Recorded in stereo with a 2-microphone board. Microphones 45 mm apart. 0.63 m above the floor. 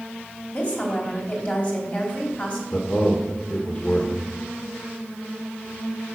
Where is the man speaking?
30° left (ahead or behind), 1.9 m.